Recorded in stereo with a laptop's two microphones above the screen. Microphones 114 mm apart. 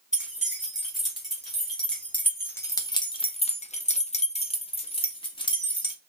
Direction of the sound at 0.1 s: 5° right (ahead or behind).